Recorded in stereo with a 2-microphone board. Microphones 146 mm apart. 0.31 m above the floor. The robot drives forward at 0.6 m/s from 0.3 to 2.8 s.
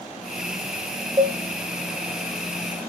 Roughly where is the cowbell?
Right.